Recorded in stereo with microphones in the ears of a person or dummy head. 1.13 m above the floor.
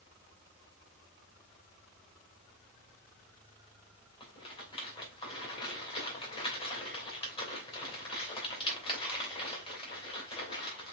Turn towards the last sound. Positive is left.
turn(degrees=25)  # may be behind; listen again after turning